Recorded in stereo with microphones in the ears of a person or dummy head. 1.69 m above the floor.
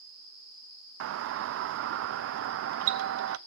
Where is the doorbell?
65° right (ahead or behind), 0.6 m.